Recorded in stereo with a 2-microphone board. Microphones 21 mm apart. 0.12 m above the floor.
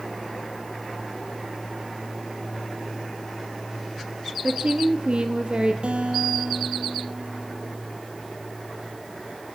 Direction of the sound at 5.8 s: 60° right (ahead or behind).